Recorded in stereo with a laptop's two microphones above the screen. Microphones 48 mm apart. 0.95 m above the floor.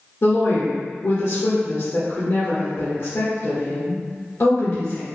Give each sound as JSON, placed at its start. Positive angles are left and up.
{"t": 0.2, "sound": "a woman speaking", "side_deg": 70, "distance_m": 1.1}